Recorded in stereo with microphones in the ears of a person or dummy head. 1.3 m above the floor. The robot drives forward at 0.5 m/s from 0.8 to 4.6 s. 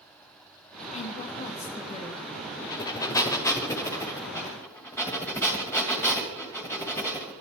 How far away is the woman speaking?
About 1.7 m.